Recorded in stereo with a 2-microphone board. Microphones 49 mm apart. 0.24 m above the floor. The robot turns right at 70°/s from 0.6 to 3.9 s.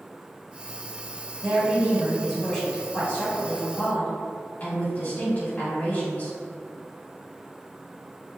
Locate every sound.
1.4 s a woman speaking: 70° right, 2.0 m; by 6.3 s 105° left, 2.0 m